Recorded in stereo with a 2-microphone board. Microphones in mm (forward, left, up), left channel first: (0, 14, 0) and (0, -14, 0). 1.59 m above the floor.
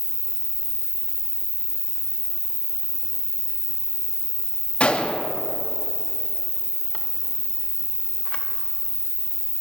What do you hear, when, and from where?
0.0 s an insect: 35° left (ahead or behind), 1.3 m
4.8 s a gunshot: 45° left (ahead or behind), 0.7 m